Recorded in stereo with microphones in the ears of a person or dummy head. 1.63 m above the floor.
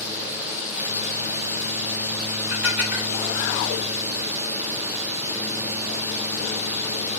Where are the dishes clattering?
15° right (ahead or behind), 1.4 m.